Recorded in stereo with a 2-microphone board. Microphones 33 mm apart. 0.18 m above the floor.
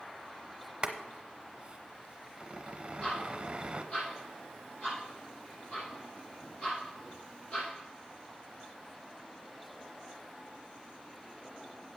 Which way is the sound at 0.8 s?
25° right (ahead or behind).